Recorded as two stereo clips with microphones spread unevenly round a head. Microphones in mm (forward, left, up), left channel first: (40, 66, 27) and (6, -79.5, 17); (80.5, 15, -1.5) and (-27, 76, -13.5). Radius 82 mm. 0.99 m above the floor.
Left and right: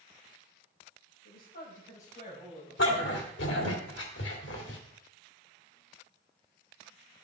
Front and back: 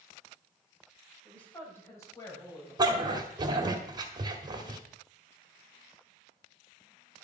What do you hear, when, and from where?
1.2 s a woman speaking: 50° left, 4 m; by 3.7 s 15° left, 6 m
2.8 s a dog barking: 95° left, 1.7 m